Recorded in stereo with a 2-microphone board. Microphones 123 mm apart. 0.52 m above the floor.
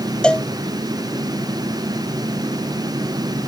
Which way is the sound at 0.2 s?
10° left (ahead or behind).